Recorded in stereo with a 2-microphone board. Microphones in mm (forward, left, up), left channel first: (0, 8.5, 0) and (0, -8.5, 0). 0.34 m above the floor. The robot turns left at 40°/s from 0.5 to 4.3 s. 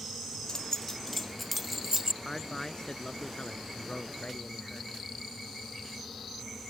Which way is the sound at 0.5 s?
40° left (ahead or behind).